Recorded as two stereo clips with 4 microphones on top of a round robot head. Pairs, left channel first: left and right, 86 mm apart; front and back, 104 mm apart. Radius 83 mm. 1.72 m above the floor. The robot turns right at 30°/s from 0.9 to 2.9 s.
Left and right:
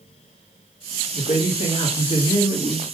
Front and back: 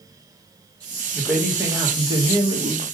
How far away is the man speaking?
About 1.6 m.